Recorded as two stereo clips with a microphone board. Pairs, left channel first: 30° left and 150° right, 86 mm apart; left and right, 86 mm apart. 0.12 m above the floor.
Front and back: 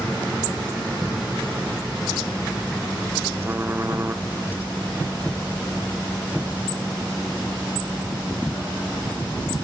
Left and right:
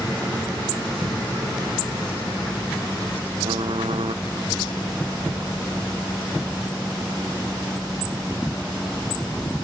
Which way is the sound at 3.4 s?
85° right.